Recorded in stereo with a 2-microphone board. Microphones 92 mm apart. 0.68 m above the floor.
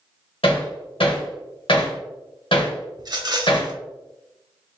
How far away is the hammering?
About 1.7 m.